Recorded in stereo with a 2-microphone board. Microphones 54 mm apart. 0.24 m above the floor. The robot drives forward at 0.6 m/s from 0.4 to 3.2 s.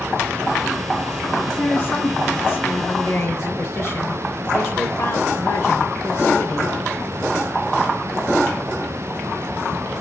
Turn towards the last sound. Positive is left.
turn(degrees=50)  # may be behind; listen again after turning